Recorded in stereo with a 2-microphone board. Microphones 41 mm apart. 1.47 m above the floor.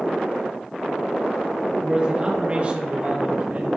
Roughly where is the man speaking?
Centre.